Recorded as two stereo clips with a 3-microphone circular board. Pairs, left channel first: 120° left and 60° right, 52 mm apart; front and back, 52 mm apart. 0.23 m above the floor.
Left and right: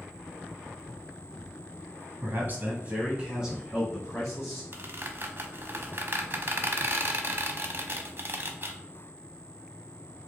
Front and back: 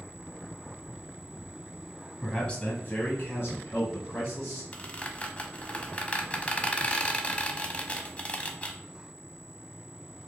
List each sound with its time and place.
2.2 s a man speaking: 80° right, 1.3 m; by 4.6 s 30° left, 3 m
4.7 s a squeak: 55° right, 0.5 m